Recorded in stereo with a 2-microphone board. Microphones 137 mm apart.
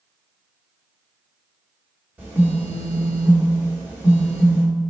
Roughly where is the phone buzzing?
Centre.